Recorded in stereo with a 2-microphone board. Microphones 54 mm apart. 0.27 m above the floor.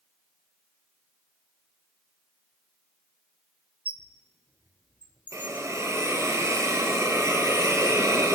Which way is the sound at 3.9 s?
30° right (ahead or behind).